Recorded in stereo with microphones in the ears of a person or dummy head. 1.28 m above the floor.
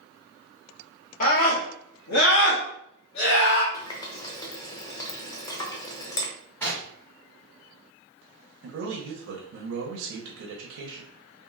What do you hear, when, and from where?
1.2 s a scream: 45° left (ahead or behind), 0.8 m; by 3.6 s 75° left (ahead or behind), 1.8 m
3.7 s a running tap: 20° left (ahead or behind), 0.6 m
6.6 s knocking: 10° left (ahead or behind), 1.5 m
8.6 s a man speaking: 80° right, 0.7 m